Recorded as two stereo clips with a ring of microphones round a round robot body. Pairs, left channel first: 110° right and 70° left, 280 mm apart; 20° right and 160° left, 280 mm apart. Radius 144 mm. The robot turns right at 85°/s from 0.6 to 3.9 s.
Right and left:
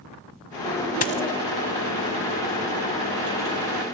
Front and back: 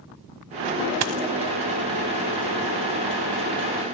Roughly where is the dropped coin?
Behind.